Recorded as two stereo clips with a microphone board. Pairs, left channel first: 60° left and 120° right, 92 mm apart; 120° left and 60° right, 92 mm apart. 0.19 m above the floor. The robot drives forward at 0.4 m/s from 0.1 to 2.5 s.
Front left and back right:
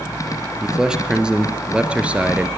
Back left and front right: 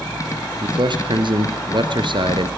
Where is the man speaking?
35° right, 3.5 m; by 2.5 s 45° right, 3 m.